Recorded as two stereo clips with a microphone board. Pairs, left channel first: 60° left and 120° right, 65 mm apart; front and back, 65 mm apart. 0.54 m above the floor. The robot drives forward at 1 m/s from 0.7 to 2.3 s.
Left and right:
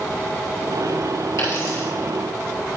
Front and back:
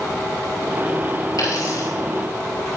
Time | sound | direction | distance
1.4 | a dropped coin | 20° left | 4.5 m